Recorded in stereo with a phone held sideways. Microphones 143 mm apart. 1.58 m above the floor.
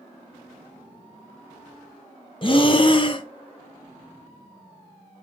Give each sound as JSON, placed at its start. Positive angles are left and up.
{"t": 2.4, "sound": "breathing", "side_deg": 35, "distance_m": 0.5}